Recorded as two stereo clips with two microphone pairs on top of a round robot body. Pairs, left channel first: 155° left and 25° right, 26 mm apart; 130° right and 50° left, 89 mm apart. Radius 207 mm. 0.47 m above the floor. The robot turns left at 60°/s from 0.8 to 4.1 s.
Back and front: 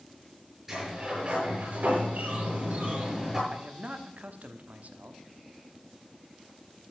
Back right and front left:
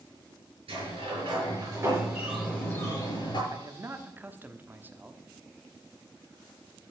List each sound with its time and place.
0.7 s a sliding door: 50° left, 6.5 m; by 3.4 s 105° right, 6.5 m
3.5 s a man speaking: 15° left, 1.4 m; by 5.2 s 20° right, 1.4 m